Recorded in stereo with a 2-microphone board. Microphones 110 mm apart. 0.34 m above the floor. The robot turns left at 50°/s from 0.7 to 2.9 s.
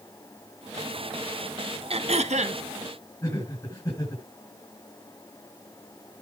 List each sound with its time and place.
1.9 s throat clearing: 65° right, 0.8 m; by 2.6 s 100° right, 0.8 m
3.2 s laughter: 35° left (ahead or behind), 3.5 m